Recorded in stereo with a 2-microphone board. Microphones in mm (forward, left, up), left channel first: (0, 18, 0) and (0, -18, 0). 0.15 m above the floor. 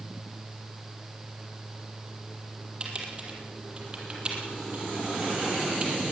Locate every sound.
2.8 s typing on a keyboard: 30° right (ahead or behind), 4 m